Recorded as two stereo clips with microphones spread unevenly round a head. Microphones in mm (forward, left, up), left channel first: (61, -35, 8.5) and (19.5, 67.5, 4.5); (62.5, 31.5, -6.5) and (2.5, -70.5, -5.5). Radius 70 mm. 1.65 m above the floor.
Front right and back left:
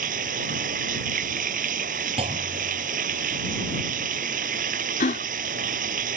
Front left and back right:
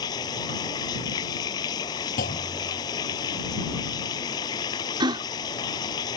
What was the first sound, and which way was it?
Running water, 125° left.